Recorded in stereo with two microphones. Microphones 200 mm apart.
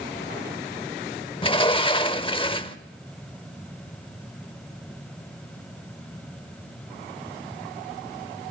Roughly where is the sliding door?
Left.